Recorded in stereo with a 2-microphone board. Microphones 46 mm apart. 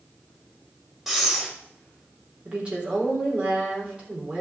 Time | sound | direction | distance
1.1 | breathing | 5° right (ahead or behind) | 1.9 m
2.5 | a woman speaking | 25° right (ahead or behind) | 3.5 m